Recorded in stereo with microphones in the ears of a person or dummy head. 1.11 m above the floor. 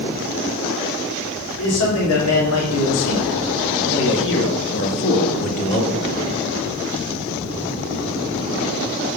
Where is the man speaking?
70° left (ahead or behind), 3 m; by 6.2 s 30° left (ahead or behind), 1.8 m.